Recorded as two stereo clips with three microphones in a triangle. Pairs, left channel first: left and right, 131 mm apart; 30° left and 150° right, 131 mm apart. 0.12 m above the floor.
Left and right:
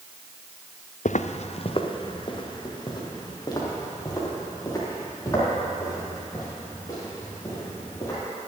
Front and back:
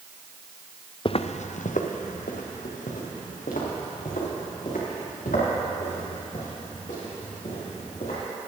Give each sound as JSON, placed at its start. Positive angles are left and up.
{"t": 1.1, "sound": "footsteps", "azimuth_deg": 80, "distance_m": 0.6}